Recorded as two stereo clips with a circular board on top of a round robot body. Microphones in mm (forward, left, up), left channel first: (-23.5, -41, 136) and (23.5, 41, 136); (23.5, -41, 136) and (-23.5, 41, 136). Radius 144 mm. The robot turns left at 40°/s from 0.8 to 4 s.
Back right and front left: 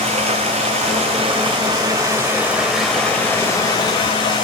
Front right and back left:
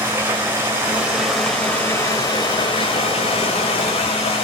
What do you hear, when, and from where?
0.0 s running water: 50° left, 2 m; by 4.4 s 75° right, 2 m